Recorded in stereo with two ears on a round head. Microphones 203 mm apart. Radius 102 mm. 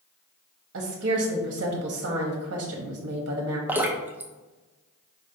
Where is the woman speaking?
55° right (ahead or behind), 0.9 m.